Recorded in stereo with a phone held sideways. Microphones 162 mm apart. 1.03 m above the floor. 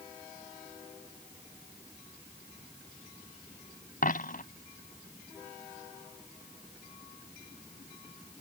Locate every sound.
4.0 s a dropped coin: 60° left (ahead or behind)